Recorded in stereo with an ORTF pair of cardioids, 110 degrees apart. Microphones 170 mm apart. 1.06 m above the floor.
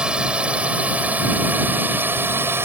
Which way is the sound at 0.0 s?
5° right.